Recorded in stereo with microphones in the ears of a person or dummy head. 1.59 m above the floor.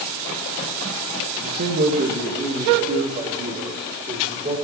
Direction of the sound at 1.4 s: 35° right (ahead or behind).